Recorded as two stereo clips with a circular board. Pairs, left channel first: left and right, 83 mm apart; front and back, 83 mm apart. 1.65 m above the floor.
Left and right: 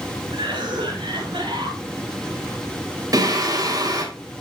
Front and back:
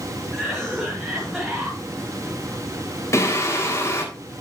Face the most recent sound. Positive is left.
turn(degrees=-50)